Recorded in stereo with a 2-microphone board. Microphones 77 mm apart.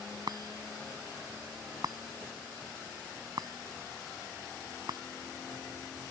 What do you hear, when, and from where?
0.3 s a chime: 60° right (ahead or behind)